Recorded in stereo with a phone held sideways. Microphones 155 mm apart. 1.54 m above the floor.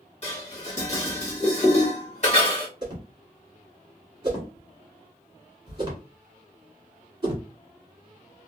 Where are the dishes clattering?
45° left (ahead or behind), 1.2 m.